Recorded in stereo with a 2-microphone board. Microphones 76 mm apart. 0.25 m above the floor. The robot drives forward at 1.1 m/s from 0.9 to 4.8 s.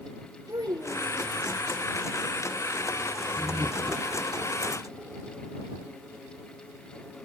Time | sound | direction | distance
0.5 | a child speaking | 60° right (ahead or behind) | 4 m
3.4 | laughter | 30° right (ahead or behind) | 2 m